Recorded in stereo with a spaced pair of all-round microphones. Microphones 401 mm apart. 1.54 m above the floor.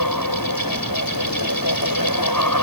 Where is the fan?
55° left (ahead or behind).